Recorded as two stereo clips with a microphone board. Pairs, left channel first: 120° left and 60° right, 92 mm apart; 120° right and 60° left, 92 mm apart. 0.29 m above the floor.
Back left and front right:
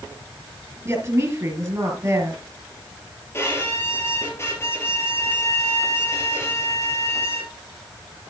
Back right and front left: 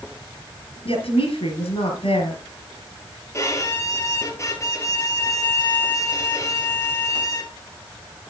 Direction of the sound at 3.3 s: Straight behind.